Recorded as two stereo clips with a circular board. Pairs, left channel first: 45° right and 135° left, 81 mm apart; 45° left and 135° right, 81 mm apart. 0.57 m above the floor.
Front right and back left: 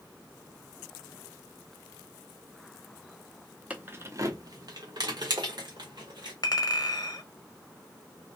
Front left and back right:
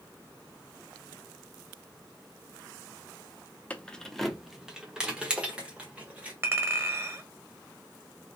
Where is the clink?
80° right, 0.8 m.